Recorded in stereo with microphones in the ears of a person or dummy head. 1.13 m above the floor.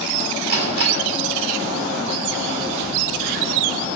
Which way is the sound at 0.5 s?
55° right (ahead or behind).